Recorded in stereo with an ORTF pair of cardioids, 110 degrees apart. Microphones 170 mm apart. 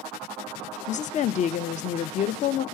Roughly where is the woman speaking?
Ahead left.